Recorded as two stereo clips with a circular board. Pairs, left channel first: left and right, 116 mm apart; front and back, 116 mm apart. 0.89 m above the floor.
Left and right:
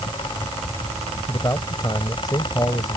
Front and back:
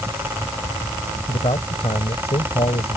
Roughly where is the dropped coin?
I don't hear a dropped coin.